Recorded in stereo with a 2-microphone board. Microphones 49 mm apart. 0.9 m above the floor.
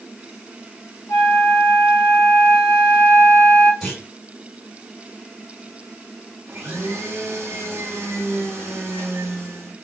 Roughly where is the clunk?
Centre.